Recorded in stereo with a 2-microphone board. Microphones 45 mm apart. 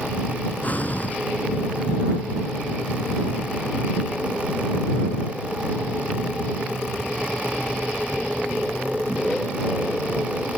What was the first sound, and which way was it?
Breathing, 40° left (ahead or behind).